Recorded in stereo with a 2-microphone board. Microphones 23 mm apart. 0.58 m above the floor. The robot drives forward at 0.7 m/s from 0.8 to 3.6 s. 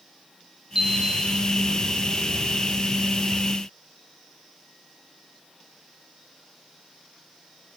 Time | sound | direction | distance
0.8 | a chime | 20° right (ahead or behind) | 1.4 m